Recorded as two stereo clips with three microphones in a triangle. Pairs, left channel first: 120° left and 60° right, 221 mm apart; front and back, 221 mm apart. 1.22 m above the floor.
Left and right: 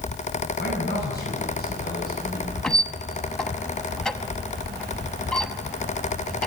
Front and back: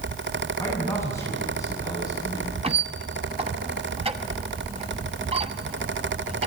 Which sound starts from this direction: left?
A man speaking, at 0.6 s.